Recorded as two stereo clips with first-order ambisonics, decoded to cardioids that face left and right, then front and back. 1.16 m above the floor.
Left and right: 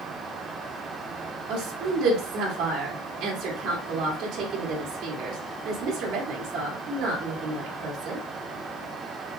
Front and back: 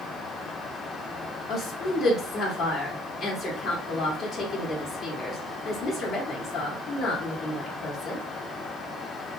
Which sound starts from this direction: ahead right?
A woman speaking, at 1.5 s.